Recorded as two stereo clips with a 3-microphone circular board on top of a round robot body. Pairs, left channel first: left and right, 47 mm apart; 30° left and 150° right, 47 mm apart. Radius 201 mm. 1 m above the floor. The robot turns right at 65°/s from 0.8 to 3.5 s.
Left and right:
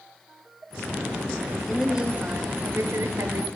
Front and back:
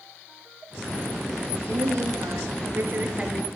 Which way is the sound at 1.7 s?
Straight behind.